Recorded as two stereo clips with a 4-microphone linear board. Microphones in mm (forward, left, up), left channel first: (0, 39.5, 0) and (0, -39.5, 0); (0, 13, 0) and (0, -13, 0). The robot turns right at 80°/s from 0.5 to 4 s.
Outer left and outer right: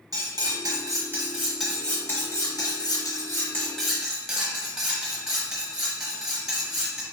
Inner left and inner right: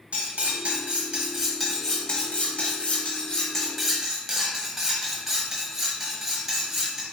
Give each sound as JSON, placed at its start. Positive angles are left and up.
{"t": 0.1, "sound": "cutlery clinking", "azimuth_deg": -90, "distance_m": 0.9}